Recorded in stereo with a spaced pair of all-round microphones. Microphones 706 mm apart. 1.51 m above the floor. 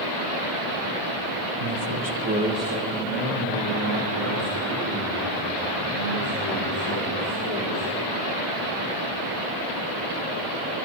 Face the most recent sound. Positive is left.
turn(degrees=40)  # may be behind; listen again after turning